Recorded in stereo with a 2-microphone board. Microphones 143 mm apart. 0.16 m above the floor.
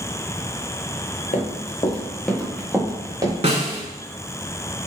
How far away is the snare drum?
About 0.8 m.